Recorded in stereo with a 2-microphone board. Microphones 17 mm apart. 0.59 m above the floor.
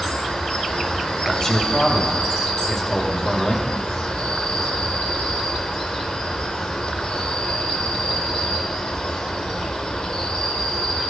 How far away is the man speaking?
About 2.5 m.